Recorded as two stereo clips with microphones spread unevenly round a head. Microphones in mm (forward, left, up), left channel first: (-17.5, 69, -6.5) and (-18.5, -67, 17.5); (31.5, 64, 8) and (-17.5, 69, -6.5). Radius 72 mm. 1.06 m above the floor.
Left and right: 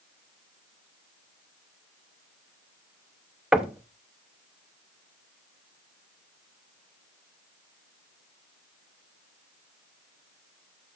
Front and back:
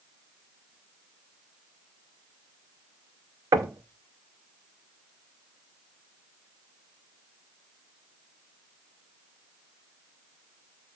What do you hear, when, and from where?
3.5 s knocking: 170° right, 0.7 m